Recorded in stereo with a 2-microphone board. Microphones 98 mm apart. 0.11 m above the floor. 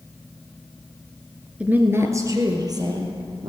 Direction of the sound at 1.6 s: 10° right (ahead or behind).